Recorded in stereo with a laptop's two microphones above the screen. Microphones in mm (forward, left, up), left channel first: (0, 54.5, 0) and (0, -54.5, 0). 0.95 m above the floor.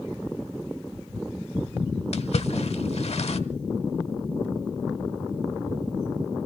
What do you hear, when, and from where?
2.1 s a splash: 65° left (ahead or behind), 1.2 m